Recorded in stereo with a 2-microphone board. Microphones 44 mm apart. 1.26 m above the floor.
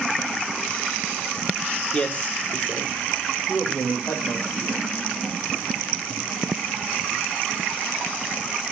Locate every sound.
1.9 s a man speaking: 25° left (ahead or behind), 1.5 m; by 4.8 s 70° left (ahead or behind), 3 m